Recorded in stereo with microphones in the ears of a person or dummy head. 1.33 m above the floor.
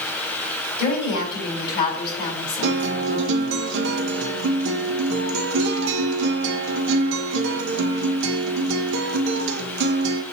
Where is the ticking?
I don't hear ticking.